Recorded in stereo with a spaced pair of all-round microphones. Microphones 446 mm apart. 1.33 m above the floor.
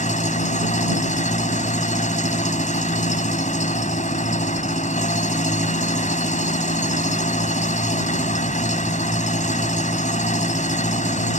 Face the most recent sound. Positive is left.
turn(degrees=15)  # may be behind; listen again after turning